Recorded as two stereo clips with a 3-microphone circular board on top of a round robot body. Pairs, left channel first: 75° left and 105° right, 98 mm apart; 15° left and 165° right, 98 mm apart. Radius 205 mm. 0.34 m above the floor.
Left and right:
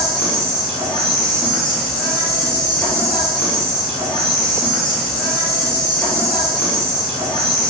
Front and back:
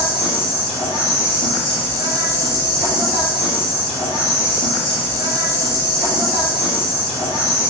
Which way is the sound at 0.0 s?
5° right.